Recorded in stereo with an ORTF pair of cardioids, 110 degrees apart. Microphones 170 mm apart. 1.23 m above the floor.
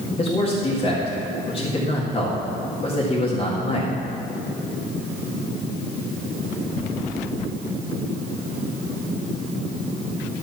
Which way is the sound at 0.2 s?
30° left.